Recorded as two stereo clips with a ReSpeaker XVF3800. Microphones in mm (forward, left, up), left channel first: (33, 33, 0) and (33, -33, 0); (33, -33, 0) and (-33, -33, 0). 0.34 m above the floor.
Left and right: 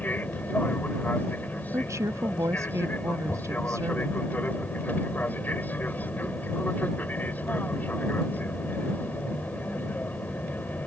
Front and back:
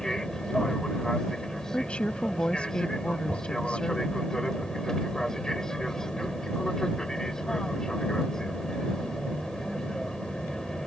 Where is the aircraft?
70° left.